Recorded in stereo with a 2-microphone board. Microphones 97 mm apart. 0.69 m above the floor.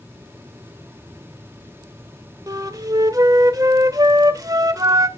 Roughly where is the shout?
I don't hear a shout.